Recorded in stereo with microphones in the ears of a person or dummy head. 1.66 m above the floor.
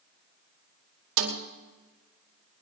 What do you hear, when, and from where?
1.2 s a snare drum: 65° right (ahead or behind), 2 m